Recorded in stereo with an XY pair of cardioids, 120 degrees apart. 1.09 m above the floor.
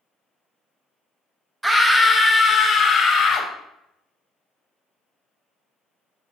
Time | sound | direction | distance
1.6 | a scream | 10° right | 0.7 m